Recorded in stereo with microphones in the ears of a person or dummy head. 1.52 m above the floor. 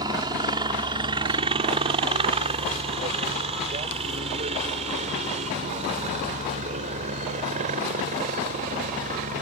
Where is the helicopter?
25° right (ahead or behind); by 9.4 s 45° right (ahead or behind).